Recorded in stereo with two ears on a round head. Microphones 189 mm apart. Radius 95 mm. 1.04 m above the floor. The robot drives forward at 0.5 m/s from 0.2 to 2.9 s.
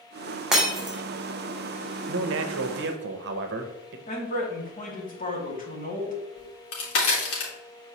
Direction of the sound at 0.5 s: 5° right (ahead or behind).